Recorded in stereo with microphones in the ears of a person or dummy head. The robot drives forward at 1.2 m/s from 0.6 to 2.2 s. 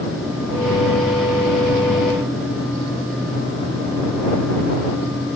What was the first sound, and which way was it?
Only background noise.